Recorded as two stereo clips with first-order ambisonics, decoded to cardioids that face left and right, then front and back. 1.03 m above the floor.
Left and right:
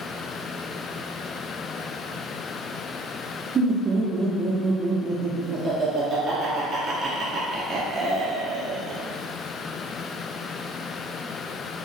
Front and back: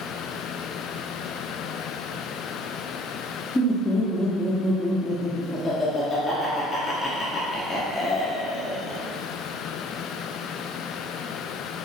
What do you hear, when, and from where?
3.5 s laughter: 50° right, 0.6 m